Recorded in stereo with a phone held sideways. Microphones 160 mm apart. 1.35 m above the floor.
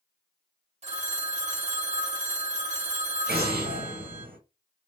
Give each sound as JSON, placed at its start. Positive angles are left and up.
{"t": 0.8, "sound": "a phone ringing", "side_deg": -45, "distance_m": 0.7}
{"t": 3.3, "sound": "an explosion", "side_deg": -80, "distance_m": 0.8}